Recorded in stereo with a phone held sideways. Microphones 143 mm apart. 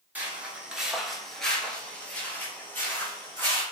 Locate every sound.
0.1 s footsteps: 10° right (ahead or behind), 0.9 m; by 3.6 s 15° left (ahead or behind), 1.6 m